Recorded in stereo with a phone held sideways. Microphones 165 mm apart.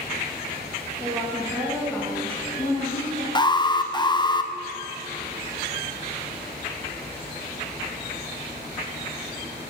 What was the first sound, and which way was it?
A woman speaking, 10° right (ahead or behind).